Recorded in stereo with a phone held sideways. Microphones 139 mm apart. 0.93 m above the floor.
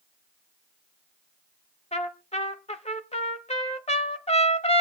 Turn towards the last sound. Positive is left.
turn(degrees=50)  # may be behind; listen again after turning